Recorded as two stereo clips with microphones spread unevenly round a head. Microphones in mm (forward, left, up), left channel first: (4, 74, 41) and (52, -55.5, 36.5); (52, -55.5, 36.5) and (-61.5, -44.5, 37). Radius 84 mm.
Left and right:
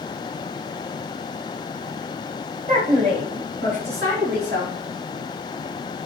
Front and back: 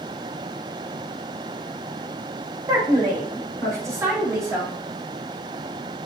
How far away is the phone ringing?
No phone ringing in this recording.